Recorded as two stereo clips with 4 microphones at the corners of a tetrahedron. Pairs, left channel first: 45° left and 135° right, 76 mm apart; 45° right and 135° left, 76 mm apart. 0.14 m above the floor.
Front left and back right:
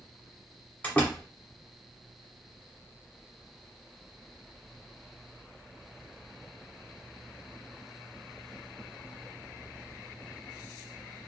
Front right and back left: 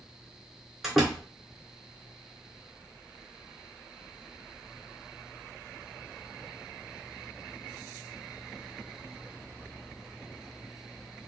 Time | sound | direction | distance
0.8 | a door slam | 50° left | 1.1 m